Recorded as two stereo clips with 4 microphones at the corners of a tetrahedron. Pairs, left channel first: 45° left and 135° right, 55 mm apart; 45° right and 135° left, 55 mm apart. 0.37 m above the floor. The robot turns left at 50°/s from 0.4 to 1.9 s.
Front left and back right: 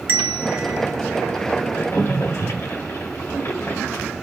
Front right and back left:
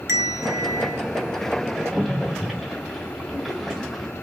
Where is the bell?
165° left, 0.7 m; by 1.0 s 135° left, 0.7 m.